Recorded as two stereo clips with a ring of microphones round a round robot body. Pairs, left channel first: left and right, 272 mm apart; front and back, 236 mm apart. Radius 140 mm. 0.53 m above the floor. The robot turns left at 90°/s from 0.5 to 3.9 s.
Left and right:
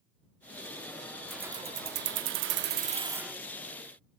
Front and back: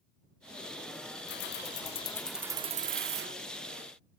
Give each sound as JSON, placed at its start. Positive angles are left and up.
{"t": 1.3, "sound": "keys jangling", "azimuth_deg": 5}